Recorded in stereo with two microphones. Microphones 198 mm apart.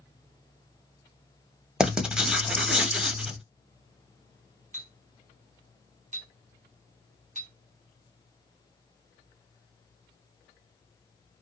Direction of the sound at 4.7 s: 40° right (ahead or behind).